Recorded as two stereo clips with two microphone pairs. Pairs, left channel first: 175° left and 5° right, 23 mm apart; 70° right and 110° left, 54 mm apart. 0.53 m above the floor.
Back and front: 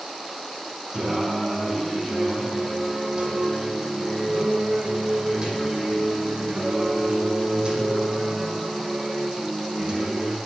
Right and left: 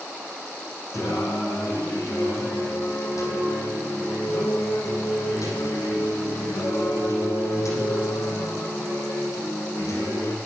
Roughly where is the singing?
Ahead right.